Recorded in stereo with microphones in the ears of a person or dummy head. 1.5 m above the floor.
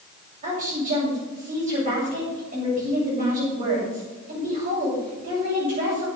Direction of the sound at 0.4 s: 45° right (ahead or behind).